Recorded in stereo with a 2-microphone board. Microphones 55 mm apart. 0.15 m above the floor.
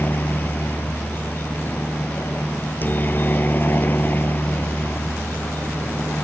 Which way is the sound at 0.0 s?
35° left (ahead or behind).